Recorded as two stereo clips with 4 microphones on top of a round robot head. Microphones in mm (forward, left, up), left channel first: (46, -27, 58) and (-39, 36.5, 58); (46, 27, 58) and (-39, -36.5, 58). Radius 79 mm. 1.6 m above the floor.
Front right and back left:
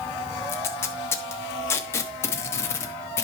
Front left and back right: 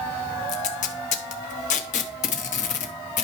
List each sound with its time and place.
0.5 s tape being pulled: 30° left, 0.7 m